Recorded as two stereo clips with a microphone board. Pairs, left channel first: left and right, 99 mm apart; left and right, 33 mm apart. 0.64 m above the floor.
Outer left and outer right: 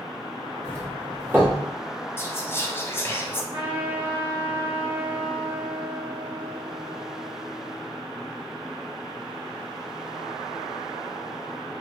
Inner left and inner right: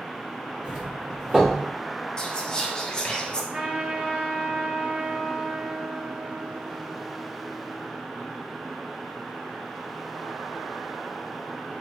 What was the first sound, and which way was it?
A doorbell, 20° right (ahead or behind).